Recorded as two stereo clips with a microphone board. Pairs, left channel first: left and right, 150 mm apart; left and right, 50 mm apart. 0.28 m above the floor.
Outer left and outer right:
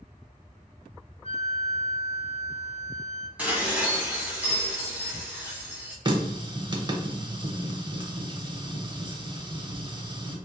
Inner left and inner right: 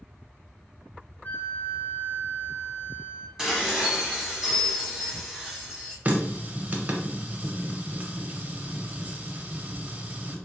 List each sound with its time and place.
1.2 s a flute: 40° left (ahead or behind), 0.7 m
3.4 s dishes clattering: 10° right (ahead or behind), 1.3 m
6.0 s a running tap: 30° right (ahead or behind), 0.6 m